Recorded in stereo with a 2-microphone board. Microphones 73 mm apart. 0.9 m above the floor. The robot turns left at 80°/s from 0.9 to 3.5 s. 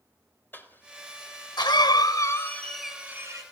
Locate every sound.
0.5 s a cough: 25° left (ahead or behind), 3.5 m; by 3.4 s 50° right (ahead or behind), 3.5 m